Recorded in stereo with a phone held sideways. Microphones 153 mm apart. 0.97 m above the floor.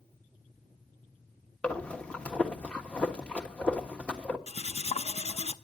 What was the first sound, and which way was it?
Breathing, 5° left (ahead or behind).